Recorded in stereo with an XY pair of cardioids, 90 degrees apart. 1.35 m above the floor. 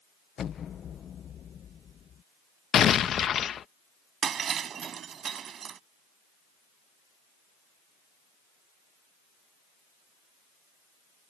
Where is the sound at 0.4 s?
60° left.